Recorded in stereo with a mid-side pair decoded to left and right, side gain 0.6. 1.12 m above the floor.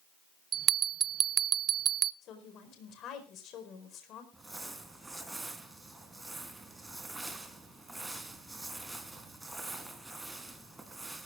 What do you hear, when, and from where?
0.5 s a bell: 40° right, 0.6 m
2.2 s a woman speaking: 55° left, 4.5 m
4.3 s crumpling: 15° right, 3 m